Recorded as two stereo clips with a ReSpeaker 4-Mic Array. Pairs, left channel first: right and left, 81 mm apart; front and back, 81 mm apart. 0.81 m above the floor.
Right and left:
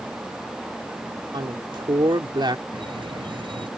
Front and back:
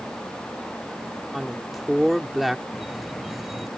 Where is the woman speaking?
95° left.